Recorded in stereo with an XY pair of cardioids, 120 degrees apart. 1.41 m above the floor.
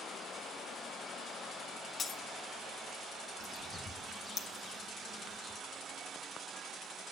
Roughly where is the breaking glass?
Ahead left.